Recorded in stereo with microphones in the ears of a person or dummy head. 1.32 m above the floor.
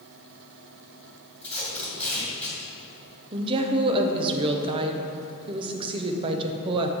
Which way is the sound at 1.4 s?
10° left (ahead or behind).